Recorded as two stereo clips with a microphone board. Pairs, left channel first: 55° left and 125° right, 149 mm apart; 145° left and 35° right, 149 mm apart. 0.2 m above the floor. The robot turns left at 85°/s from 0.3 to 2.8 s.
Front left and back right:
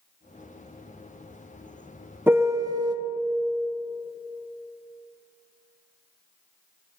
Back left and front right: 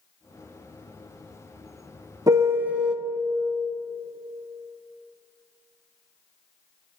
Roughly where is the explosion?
No explosion in this recording.